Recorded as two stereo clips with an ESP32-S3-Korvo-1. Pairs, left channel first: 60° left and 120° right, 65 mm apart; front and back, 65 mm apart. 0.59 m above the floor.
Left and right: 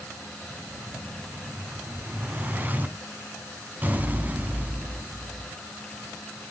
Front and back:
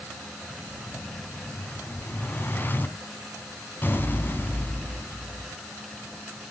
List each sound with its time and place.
0.5 s an explosion: 60° right, 2.5 m